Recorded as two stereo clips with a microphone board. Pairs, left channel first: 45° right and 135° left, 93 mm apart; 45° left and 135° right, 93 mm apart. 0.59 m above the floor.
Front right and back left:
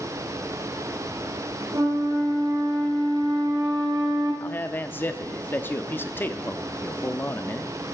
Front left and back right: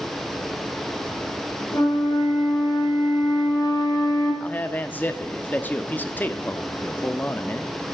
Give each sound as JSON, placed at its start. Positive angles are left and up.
{"t": 1.7, "sound": "a flute", "azimuth_deg": 95, "distance_m": 6.0}
{"t": 4.4, "sound": "a man speaking", "azimuth_deg": -5, "distance_m": 0.7}